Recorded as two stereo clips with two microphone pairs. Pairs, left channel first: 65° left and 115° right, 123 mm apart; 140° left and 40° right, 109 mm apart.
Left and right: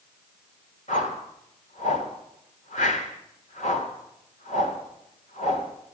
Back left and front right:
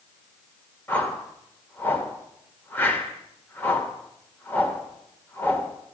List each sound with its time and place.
0.9 s a whoosh: 65° left, 1.6 m